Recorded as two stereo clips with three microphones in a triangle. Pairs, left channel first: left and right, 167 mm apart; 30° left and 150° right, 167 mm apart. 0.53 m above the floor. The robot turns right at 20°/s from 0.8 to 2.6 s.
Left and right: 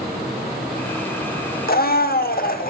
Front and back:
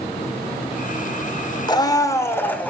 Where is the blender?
90° left, 0.9 m; by 2.7 s 110° left, 0.9 m.